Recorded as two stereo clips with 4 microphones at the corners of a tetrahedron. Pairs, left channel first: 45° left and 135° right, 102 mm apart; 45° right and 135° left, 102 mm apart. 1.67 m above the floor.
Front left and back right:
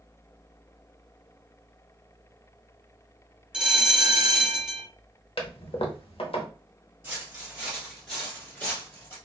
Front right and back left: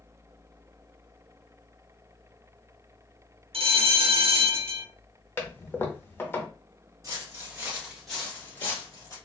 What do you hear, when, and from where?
3.5 s a bell: 145° left, 0.7 m
5.4 s a toilet flushing: 20° left, 0.7 m
7.0 s footsteps: 170° left, 2 m; by 9.2 s 5° right, 2 m